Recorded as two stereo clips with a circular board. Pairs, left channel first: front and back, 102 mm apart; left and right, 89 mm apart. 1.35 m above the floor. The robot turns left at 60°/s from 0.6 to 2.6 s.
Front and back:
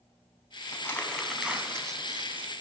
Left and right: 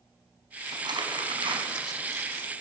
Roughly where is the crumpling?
Ahead right.